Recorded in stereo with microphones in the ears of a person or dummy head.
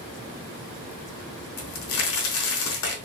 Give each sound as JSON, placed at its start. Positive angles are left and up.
{"t": 1.6, "sound": "a crack", "side_deg": 75, "distance_m": 0.8}